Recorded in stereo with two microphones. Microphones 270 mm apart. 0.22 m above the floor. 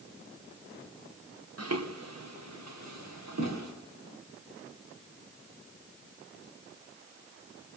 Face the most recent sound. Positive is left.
turn(degrees=-85)